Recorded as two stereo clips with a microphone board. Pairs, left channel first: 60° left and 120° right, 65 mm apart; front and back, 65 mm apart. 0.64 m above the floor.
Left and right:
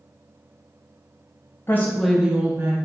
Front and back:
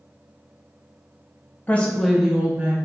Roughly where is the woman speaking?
Ahead left.